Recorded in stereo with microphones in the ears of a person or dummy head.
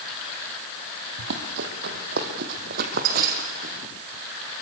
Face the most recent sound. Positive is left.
turn(degrees=-45)  # may be behind; listen again after turning